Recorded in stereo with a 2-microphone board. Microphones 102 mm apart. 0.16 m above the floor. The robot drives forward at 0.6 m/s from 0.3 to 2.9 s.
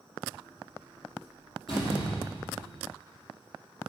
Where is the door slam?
55° left (ahead or behind), 4.5 m; by 2.9 s 65° left (ahead or behind), 4 m.